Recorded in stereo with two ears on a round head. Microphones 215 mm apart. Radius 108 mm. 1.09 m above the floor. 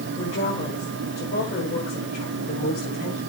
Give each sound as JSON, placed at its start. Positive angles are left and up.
{"t": 0.2, "sound": "a woman speaking", "side_deg": 30, "distance_m": 5.5}